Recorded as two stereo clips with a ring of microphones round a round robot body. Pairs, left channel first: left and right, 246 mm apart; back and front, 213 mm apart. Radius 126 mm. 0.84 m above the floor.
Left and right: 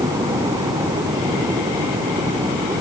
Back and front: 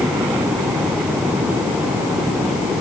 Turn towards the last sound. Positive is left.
No sound to turn to.